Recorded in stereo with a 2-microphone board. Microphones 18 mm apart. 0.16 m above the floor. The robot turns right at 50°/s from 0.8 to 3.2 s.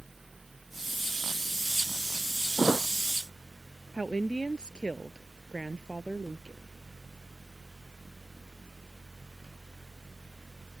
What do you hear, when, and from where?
2.6 s a thud: 10° left (ahead or behind); by 2.9 s 5° right (ahead or behind)
3.9 s a woman speaking: 65° left (ahead or behind)